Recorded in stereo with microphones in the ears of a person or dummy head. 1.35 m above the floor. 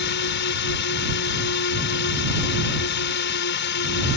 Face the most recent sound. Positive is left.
turn(degrees=55)  # may be behind; listen again after turning